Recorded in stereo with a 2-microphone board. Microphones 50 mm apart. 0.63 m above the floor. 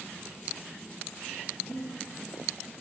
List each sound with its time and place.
1.7 s breathing: centre (ahead or behind), 1.4 m